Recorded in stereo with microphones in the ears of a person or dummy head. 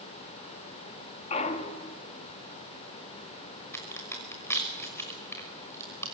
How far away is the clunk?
About 2 m.